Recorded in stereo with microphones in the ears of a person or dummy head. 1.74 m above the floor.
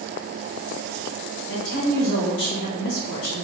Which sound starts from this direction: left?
A woman speaking, at 1.5 s.